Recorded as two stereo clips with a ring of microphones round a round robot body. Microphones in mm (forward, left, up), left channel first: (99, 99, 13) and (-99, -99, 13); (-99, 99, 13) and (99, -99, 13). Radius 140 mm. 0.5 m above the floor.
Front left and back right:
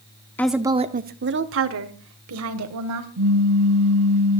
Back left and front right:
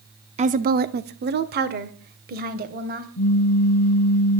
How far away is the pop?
About 0.6 m.